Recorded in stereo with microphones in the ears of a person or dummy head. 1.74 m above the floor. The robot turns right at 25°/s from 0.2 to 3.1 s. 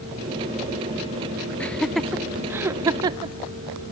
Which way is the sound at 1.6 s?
5° left (ahead or behind).